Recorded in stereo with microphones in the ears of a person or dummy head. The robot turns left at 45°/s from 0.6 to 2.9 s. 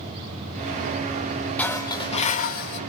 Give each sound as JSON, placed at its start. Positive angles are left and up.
{"t": 1.6, "sound": "dishes clattering", "azimuth_deg": 170, "distance_m": 1.1}